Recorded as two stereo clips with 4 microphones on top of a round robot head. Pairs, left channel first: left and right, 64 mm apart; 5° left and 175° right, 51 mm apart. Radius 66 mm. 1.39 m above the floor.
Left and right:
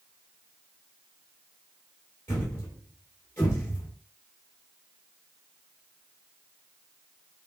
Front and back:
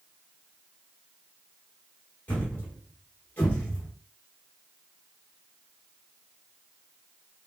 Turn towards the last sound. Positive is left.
turn(degrees=40)